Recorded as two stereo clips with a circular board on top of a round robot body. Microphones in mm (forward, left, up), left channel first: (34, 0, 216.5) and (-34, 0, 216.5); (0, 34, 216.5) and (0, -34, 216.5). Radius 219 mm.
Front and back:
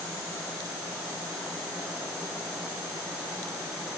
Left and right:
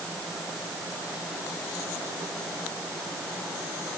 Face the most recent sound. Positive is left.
No sound to turn to.